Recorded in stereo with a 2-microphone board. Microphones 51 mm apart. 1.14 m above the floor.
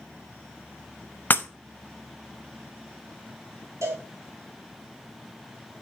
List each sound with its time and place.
1.3 s breaking glass: 35° left (ahead or behind), 0.6 m
3.8 s a cowbell: 70° right (ahead or behind), 3 m